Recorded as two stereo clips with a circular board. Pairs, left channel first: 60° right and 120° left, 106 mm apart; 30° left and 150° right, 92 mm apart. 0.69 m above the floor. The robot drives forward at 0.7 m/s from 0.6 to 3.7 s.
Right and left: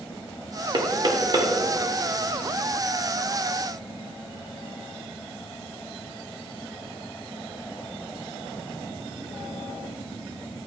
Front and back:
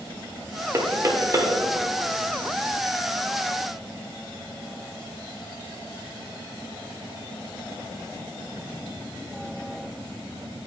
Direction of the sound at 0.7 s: 160° left.